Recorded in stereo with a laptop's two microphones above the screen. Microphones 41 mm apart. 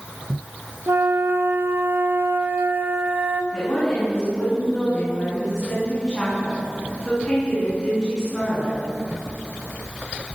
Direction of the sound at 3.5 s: 25° left (ahead or behind).